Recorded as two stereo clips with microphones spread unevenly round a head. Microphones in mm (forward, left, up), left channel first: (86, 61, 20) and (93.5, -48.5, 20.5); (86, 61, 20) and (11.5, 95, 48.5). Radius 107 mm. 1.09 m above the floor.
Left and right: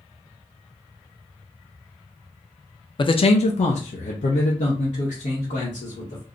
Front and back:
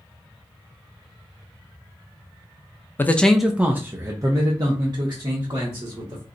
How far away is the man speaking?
About 0.5 m.